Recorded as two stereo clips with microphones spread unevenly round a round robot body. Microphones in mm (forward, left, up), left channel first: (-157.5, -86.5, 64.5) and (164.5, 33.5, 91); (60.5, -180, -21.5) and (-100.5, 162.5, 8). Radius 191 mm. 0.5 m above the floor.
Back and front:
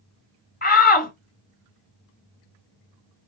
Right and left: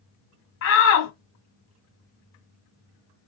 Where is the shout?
105° right, 1.9 m.